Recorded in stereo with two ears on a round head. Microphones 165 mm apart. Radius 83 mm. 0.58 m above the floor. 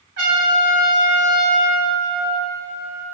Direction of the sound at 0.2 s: 65° right (ahead or behind).